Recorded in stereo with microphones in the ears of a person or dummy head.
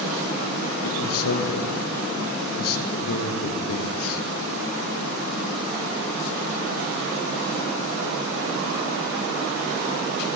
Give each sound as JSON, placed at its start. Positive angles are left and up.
{"t": 0.8, "sound": "a man speaking", "side_deg": 85, "distance_m": 1.0}